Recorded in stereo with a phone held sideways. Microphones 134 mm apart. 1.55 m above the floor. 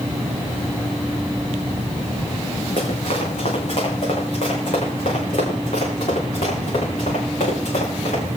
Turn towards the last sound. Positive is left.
turn(degrees=80)